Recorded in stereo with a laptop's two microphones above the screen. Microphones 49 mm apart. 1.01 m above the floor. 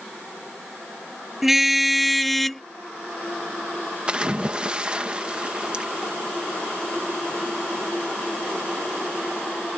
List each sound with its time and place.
1.4 s a car horn: 5° right (ahead or behind); by 2.6 s 5° left (ahead or behind)
4.1 s a splash: 20° right (ahead or behind)